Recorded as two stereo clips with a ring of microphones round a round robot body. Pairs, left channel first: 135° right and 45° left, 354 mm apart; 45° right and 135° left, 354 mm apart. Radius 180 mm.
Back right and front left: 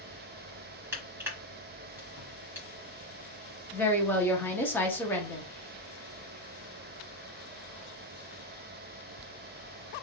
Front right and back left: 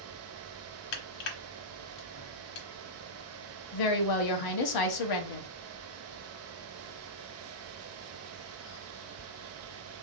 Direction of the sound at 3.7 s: 50° right.